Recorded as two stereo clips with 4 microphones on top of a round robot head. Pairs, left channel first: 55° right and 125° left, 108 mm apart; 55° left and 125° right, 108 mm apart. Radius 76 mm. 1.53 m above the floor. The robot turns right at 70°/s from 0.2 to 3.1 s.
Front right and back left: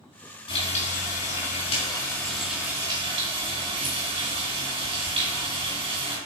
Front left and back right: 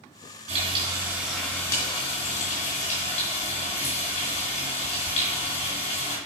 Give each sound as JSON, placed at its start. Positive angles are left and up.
{"t": 0.5, "sound": "frying", "azimuth_deg": -100, "distance_m": 3.0}